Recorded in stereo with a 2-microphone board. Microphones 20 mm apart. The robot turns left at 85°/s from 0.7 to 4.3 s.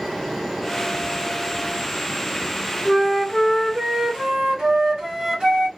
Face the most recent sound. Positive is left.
turn(degrees=-105)